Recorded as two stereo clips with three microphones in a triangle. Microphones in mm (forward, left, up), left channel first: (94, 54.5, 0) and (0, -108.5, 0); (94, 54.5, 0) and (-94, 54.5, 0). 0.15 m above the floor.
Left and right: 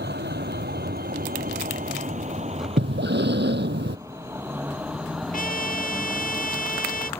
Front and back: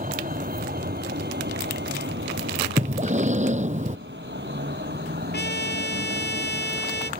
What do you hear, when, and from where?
0.0 s a vehicle: 140° right; by 7.2 s 140° left
2.8 s breathing: 135° right
5.3 s a trumpet: 20° left